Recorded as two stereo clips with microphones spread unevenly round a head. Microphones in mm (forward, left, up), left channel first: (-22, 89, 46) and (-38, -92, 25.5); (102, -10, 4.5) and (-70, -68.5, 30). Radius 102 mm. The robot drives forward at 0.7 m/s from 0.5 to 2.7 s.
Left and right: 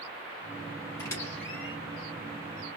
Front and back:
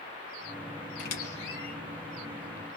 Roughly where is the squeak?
Ahead left.